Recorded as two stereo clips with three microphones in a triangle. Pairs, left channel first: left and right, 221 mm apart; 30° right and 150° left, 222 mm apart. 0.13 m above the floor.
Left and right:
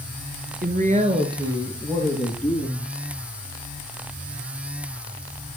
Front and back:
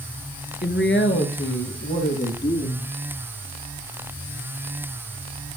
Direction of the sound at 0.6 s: 55° right.